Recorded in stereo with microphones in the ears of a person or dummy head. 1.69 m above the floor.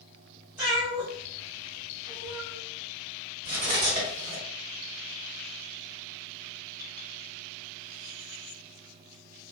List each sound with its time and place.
0.6 s a cat meowing: 10° right (ahead or behind), 1.4 m; by 2.6 s 40° right (ahead or behind), 1.4 m
3.5 s cutlery clinking: 45° right (ahead or behind), 1.8 m